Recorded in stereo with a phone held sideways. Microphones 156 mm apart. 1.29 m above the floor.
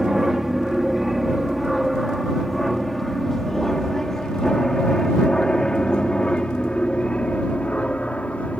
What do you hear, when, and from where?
0.0 s an aircraft: 5° right (ahead or behind); by 8.6 s 10° left (ahead or behind)